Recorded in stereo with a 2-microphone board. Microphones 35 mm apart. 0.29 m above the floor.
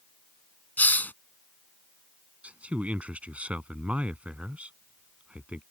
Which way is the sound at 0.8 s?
65° left (ahead or behind).